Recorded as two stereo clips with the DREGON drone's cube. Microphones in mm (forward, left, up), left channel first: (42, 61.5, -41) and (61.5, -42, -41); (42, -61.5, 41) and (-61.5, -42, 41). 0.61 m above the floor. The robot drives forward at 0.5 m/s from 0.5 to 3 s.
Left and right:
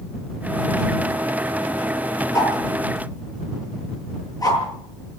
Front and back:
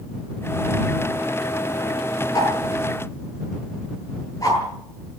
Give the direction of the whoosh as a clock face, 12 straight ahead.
11 o'clock.